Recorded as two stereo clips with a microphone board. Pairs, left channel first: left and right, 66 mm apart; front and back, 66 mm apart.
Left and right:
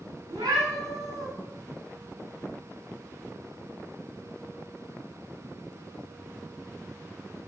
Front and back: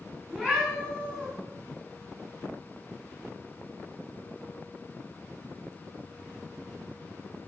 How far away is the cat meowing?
About 4 m.